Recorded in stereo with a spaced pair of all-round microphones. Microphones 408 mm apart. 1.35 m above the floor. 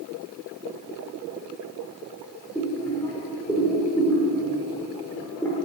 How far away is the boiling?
About 2 m.